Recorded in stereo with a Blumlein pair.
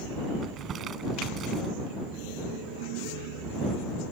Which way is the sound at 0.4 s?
25° right.